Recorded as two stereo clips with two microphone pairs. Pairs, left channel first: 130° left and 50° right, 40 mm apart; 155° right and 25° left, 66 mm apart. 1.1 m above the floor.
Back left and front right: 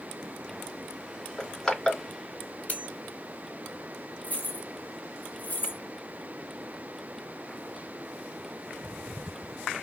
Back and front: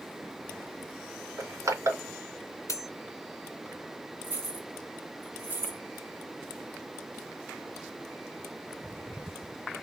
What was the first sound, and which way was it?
Crushing, 55° left.